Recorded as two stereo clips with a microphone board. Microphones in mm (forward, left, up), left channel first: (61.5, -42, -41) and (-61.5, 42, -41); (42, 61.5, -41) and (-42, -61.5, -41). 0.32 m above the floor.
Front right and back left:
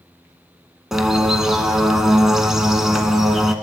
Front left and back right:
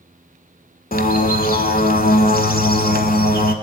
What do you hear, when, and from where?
0.9 s a bird: 60° left, 0.6 m